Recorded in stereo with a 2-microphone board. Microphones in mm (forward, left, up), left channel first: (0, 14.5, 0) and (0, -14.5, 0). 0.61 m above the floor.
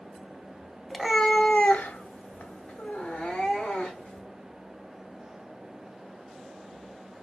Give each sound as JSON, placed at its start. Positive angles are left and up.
{"t": 0.9, "sound": "a cat meowing", "side_deg": 5, "distance_m": 0.7}